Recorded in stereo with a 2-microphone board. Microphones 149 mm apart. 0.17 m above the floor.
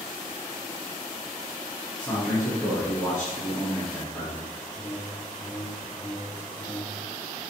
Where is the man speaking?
15° left (ahead or behind), 2.0 m.